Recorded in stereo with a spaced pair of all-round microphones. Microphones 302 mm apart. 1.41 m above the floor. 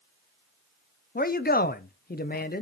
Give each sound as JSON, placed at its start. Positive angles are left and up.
{"t": 1.1, "sound": "a man speaking", "side_deg": 30, "distance_m": 0.5}